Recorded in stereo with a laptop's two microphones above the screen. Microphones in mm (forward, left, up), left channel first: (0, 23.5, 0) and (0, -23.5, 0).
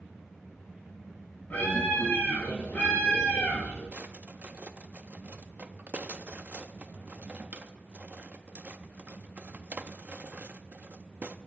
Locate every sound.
1.5 s a scream: 35° left (ahead or behind), 7.5 m
3.9 s a drawer: 35° right (ahead or behind), 0.5 m